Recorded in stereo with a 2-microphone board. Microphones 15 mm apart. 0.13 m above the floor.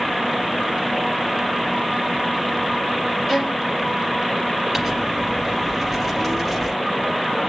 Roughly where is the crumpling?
Centre.